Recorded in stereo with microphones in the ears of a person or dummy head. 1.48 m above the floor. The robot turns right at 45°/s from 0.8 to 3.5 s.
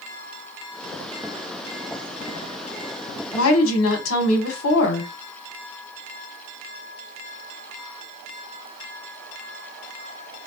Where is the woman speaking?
75° left (ahead or behind), 1.1 m; by 5.1 s 80° left, 1.1 m.